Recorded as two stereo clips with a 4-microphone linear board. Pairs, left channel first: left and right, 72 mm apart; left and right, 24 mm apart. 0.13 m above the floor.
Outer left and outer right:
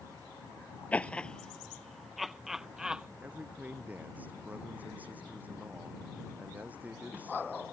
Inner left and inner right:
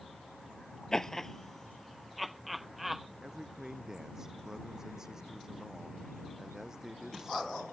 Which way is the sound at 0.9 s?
20° left (ahead or behind).